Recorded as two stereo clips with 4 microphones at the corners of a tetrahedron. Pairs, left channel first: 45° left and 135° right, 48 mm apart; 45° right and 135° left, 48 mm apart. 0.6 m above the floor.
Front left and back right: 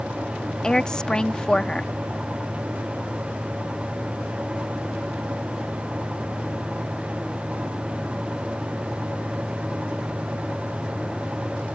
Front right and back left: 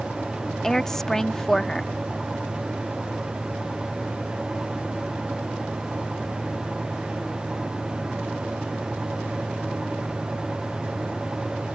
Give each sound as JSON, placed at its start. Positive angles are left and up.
{"t": 0.6, "sound": "a woman speaking", "azimuth_deg": 15}